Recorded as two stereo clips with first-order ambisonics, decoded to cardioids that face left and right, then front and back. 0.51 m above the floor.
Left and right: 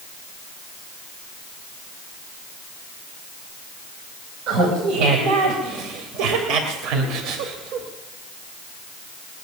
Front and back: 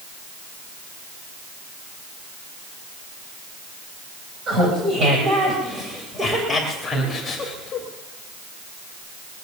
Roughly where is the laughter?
Behind right.